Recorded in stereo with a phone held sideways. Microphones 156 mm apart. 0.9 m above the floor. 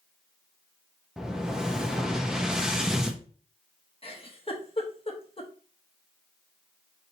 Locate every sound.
1.2 s an explosion: 5° right (ahead or behind), 0.6 m
4.0 s a giggle: 35° left (ahead or behind), 0.9 m